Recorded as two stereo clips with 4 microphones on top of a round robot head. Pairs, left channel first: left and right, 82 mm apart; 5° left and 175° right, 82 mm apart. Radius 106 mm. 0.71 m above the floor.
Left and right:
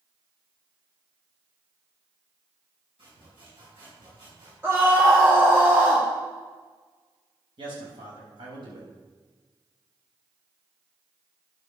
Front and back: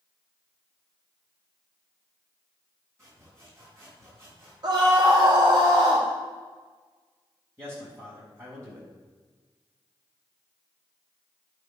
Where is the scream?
150° right, 2.0 m.